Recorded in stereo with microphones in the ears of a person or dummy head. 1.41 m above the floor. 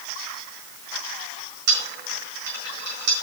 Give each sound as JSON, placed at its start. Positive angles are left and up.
{"t": 1.7, "sound": "a dropped coin", "side_deg": -65, "distance_m": 4.5}